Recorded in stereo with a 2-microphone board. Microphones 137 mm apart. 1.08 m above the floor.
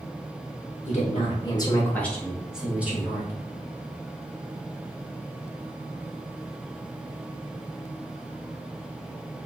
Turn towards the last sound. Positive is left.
turn(degrees=-15)  # may be behind; listen again after turning